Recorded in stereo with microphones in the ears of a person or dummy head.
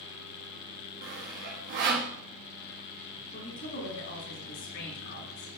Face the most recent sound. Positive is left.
turn(degrees=50)  # may be behind; listen again after turning